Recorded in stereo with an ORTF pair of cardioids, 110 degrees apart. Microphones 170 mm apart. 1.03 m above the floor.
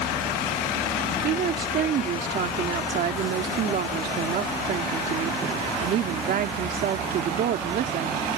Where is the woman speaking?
60° right.